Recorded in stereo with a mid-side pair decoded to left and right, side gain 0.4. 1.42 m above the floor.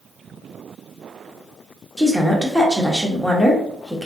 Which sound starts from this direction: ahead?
A woman speaking, at 2.0 s.